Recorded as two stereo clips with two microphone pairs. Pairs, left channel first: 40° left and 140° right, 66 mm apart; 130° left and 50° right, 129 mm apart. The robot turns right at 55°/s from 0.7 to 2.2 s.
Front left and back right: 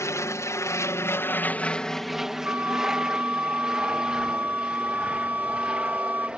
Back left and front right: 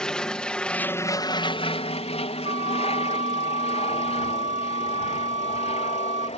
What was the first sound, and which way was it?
An aircraft, 45° left.